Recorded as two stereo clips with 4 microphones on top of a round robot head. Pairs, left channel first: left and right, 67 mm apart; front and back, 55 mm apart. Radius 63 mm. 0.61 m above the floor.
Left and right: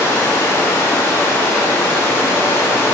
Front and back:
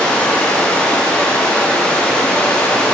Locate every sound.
0.0 s running water: 65° left, 0.9 m